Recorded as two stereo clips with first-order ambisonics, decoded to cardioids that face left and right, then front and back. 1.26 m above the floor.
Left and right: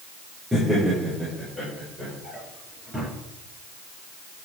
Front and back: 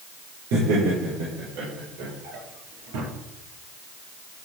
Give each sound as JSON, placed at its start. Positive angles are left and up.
{"t": 0.5, "sound": "laughter", "azimuth_deg": -170, "distance_m": 4.5}
{"t": 2.2, "sound": "a drawer", "azimuth_deg": -175, "distance_m": 5.0}